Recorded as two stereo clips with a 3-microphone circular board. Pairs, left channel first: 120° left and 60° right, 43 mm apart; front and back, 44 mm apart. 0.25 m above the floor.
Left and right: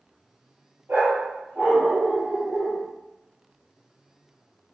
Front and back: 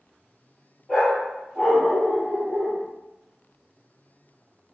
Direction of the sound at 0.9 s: 85° right.